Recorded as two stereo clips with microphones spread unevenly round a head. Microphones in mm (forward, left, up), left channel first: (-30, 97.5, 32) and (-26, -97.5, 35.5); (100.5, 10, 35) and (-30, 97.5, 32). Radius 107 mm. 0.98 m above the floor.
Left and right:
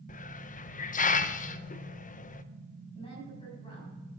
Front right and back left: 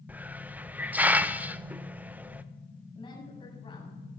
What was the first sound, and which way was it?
A hiss, 70° left.